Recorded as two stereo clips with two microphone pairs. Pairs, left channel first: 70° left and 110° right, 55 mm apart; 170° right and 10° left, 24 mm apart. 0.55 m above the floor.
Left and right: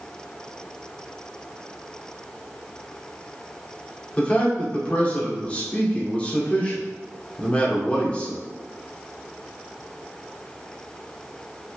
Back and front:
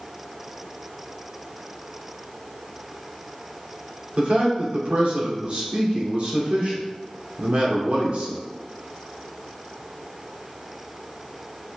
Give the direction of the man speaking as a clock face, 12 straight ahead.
12 o'clock.